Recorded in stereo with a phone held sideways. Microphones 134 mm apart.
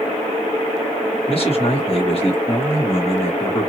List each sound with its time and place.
1.3 s a man speaking: 45° left (ahead or behind), 1.3 m